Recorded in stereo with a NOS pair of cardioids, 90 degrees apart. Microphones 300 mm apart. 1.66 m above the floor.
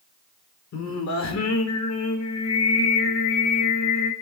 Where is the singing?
65° left, 3.5 m.